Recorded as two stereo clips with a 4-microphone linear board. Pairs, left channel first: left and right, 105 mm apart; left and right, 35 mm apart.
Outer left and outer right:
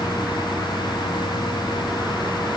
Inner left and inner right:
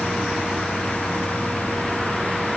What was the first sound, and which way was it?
Only background noise.